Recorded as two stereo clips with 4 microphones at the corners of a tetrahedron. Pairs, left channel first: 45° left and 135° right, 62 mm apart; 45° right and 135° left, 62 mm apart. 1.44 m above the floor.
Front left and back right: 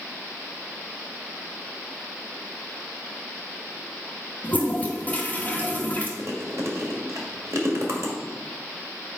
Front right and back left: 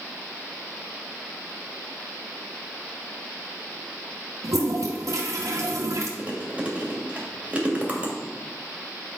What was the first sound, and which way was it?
A toilet flushing, 110° left.